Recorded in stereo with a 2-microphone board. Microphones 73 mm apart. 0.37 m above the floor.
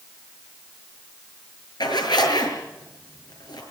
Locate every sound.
1.8 s a zipper: 80° left, 7 m